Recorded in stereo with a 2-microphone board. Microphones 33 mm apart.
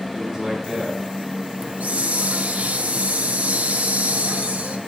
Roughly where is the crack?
No crack in this recording.